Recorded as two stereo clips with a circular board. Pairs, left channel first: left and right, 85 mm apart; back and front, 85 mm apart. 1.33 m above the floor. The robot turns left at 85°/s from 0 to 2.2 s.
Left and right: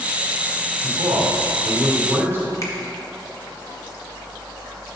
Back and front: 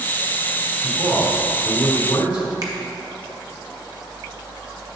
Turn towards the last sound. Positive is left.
turn(degrees=40)